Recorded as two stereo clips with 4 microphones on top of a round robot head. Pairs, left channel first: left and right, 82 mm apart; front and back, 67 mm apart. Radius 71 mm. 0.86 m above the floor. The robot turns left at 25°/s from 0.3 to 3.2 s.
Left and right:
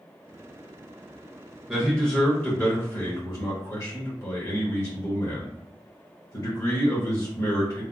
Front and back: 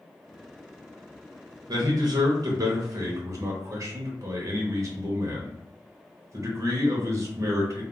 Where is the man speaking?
175° left, 0.9 m; by 7.8 s 140° left, 0.9 m.